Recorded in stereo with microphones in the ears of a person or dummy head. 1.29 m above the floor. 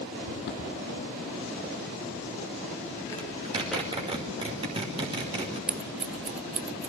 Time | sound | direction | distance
0.2 | footsteps | 55° left (ahead or behind) | 3 m
3.2 | a zipper | 30° right (ahead or behind) | 3.5 m
5.7 | scissors | 10° right (ahead or behind) | 0.7 m